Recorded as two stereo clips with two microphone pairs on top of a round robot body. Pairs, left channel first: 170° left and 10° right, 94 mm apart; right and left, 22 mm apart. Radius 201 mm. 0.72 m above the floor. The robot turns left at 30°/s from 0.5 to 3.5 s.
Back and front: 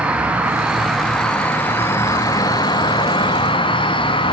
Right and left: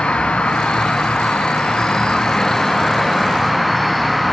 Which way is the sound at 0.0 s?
85° right.